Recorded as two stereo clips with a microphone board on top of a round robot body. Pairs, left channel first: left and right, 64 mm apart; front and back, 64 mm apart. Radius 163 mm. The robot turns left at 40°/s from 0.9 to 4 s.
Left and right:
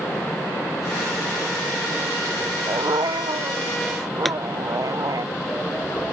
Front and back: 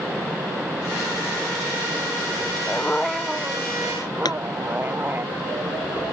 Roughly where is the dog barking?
Right.